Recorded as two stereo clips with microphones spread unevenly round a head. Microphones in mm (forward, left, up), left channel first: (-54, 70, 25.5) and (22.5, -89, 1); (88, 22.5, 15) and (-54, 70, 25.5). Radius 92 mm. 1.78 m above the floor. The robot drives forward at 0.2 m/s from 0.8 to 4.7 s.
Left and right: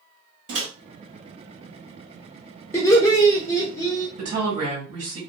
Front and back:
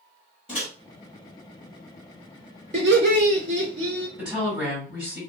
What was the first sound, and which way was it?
A microwave, 85° right.